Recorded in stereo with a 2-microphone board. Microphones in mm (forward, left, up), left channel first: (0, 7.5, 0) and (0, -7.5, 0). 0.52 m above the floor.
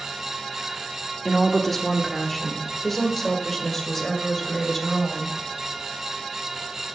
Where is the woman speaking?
10° left (ahead or behind), 1.1 m; by 5.3 s 15° left (ahead or behind), 3.5 m.